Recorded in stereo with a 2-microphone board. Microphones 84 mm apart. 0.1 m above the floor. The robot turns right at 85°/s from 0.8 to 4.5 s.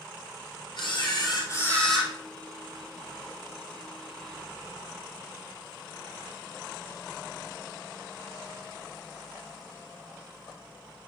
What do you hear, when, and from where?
0.8 s a camera shutter: 80° left, 2 m; by 2.1 s 170° right, 2 m